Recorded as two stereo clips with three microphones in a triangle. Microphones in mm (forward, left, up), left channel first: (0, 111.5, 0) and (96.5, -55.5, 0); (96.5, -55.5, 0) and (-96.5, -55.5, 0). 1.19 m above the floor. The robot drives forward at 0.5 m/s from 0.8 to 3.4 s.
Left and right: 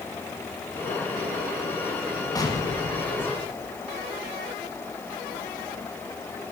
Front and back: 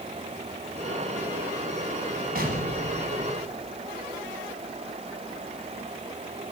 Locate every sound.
2.4 s an explosion: 175° right, 1.5 m; by 3.9 s straight behind, 2.0 m